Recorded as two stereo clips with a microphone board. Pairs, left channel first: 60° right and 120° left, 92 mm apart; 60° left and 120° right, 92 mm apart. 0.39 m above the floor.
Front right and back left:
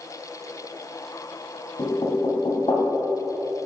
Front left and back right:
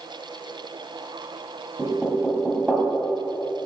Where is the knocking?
40° right, 2.5 m.